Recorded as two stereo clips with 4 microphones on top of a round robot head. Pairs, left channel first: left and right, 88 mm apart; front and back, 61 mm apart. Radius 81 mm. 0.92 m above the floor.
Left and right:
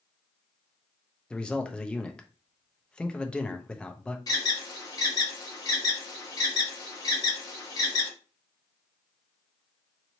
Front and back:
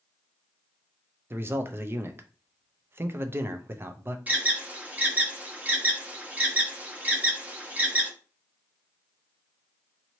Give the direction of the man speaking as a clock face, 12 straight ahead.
6 o'clock.